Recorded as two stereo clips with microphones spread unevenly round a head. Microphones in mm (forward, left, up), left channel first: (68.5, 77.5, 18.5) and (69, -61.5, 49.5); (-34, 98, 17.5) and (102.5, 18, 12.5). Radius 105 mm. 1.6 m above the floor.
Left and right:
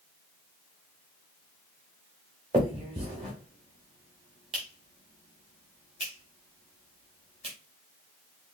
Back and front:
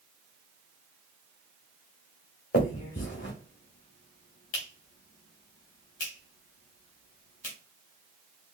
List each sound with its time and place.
2.5 s a finger snap: 155° right, 1.9 m